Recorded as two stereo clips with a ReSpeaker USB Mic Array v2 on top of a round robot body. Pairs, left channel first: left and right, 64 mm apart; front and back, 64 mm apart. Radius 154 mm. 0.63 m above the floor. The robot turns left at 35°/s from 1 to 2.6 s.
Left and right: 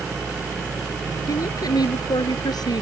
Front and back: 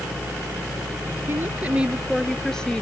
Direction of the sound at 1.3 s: 125° left.